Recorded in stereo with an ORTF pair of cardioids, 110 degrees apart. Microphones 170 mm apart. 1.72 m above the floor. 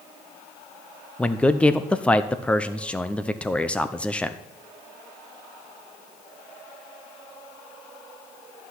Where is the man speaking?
5° left, 0.8 m.